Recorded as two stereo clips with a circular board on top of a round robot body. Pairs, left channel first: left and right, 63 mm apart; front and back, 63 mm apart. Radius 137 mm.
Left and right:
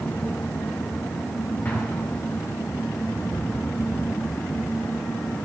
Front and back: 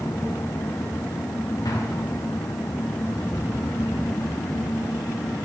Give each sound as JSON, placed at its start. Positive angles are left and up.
{"t": 1.6, "sound": "an explosion", "azimuth_deg": 25, "distance_m": 2.0}